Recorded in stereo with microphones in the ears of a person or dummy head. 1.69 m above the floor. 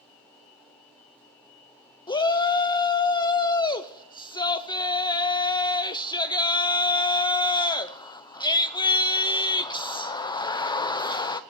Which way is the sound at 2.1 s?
20° left (ahead or behind).